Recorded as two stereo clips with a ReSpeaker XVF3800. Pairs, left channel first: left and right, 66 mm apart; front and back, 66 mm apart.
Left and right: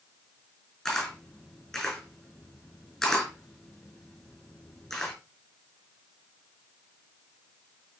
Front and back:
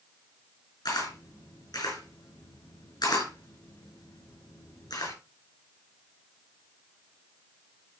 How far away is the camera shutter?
About 6 m.